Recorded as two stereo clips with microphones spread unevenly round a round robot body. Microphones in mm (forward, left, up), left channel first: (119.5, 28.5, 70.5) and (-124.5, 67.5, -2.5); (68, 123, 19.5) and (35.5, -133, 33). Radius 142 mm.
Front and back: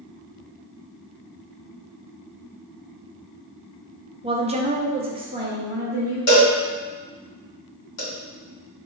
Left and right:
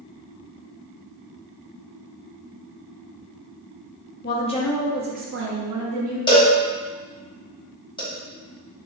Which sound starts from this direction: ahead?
A cowbell, at 6.3 s.